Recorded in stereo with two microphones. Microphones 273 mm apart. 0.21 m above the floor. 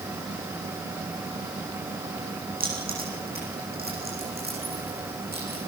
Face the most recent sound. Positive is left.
turn(degrees=-35)  # may be behind; listen again after turning